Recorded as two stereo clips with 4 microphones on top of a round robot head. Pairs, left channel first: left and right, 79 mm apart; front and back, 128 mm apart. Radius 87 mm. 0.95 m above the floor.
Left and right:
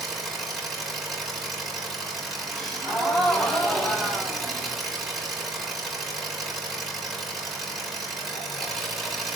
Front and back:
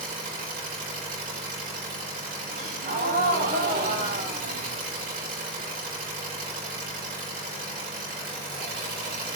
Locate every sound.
0.0 s an engine running: straight behind, 4.5 m
2.5 s a gasp: 175° left, 5 m